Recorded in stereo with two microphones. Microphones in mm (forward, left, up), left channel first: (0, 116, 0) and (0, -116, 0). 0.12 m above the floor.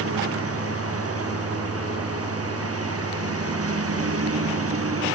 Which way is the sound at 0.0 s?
80° right.